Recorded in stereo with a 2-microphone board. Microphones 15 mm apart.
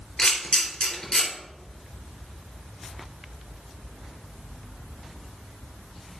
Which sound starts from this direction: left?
A camera shutter, at 0.2 s.